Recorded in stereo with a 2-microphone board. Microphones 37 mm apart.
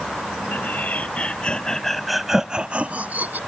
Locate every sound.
0.5 s laughter: 50° left (ahead or behind); by 3.4 s 50° right (ahead or behind)